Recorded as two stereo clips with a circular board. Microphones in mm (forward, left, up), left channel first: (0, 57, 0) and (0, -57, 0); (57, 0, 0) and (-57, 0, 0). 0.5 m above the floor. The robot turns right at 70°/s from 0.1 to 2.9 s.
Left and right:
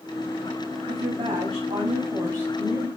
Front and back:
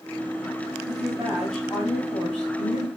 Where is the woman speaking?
135° right, 3 m; by 2.9 s 5° left, 3 m.